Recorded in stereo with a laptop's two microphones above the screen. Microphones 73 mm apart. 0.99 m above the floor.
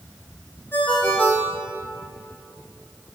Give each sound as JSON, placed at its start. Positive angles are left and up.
{"t": 0.7, "sound": "a ringtone", "side_deg": 30, "distance_m": 1.9}